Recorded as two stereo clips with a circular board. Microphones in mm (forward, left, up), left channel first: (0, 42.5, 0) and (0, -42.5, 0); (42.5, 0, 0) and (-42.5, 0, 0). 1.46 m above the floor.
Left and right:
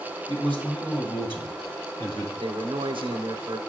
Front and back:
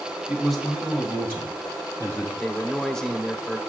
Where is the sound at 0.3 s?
95° left, 2.5 m; by 2.3 s 65° left, 3.5 m.